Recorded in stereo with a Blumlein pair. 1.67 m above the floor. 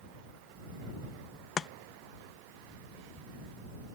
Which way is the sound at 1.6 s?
20° left.